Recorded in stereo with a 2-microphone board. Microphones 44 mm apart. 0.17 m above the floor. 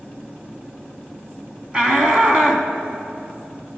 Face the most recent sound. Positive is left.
turn(degrees=-20)  # may be behind; listen again after turning